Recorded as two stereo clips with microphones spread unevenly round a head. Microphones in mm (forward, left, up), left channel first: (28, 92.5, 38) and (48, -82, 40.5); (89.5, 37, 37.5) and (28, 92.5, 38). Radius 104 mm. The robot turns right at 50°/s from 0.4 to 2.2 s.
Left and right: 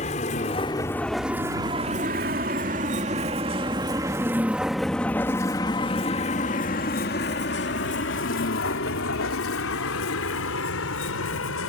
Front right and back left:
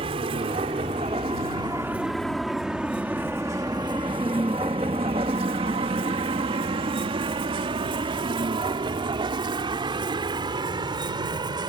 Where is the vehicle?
155° left; by 11.7 s 110° left.